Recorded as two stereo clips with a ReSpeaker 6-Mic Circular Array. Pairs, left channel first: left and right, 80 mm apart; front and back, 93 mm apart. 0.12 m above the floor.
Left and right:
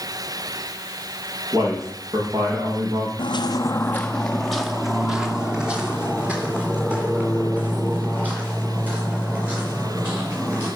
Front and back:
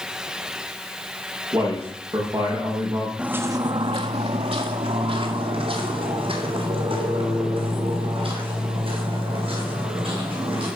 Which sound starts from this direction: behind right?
A man speaking, at 1.5 s.